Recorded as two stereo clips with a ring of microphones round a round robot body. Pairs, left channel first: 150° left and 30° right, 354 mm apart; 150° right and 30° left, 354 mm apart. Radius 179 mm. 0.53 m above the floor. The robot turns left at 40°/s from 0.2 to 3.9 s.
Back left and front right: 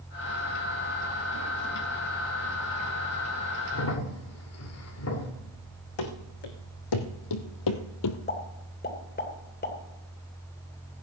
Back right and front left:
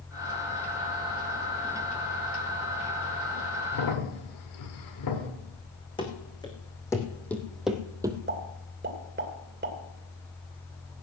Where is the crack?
160° right, 2 m; by 5.3 s 170° right, 2 m.